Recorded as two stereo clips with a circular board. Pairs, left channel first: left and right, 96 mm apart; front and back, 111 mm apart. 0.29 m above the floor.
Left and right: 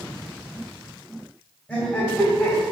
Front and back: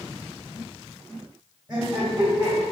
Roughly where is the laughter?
Behind left.